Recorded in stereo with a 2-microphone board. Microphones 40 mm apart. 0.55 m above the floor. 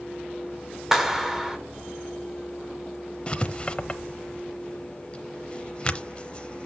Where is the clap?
10° right (ahead or behind), 1.8 m.